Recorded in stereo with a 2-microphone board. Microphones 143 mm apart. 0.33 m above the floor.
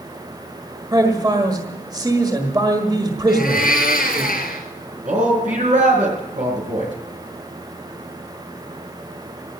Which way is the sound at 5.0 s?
60° right (ahead or behind).